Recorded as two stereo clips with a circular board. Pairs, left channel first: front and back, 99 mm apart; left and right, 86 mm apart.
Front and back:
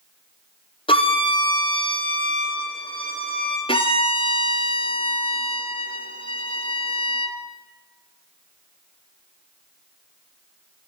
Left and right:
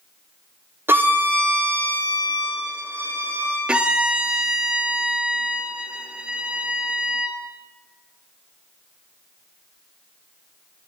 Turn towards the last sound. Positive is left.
turn(degrees=-10)